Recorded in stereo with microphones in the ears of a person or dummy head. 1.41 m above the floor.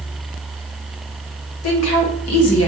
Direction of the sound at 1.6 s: 80° left.